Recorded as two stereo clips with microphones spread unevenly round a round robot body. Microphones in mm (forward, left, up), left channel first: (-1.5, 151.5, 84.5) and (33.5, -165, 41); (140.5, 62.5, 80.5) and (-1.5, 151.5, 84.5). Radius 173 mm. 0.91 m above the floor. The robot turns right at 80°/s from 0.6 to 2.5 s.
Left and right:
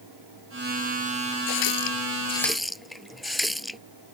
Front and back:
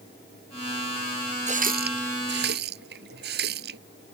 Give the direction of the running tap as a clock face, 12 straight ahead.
9 o'clock.